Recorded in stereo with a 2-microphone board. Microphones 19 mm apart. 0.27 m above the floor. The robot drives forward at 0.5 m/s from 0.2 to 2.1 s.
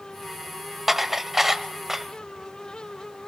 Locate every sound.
0.9 s dishes clattering: 15° right (ahead or behind), 0.7 m